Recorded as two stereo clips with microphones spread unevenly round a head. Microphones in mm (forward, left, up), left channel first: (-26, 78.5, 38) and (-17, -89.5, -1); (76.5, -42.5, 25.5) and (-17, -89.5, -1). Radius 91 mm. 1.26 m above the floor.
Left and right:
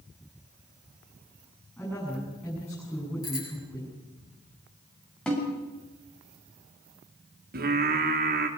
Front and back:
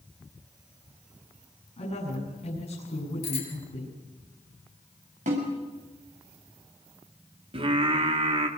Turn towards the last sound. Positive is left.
turn(degrees=-120)